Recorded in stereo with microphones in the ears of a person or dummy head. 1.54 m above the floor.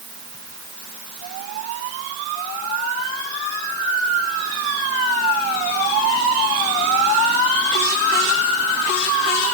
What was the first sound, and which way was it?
Only background noise.